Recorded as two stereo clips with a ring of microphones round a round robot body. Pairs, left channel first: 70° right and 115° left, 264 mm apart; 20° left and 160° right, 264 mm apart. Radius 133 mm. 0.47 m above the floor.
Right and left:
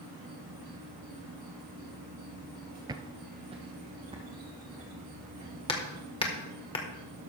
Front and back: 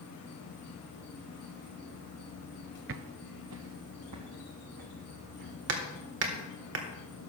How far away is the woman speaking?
I don't hear a woman speaking.